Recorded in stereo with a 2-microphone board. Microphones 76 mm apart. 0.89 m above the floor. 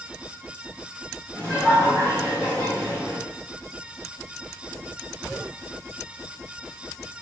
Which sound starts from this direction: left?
Laughter, at 1.3 s.